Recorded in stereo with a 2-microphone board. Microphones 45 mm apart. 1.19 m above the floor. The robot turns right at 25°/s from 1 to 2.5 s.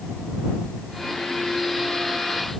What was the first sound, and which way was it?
Only background noise.